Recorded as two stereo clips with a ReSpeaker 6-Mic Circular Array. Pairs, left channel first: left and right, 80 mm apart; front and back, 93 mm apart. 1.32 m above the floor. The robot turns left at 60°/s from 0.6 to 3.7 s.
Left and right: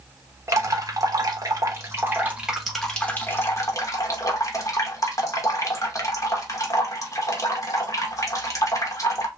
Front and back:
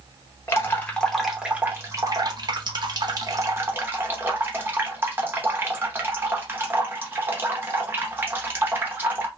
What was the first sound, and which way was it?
Dripping, 55° right.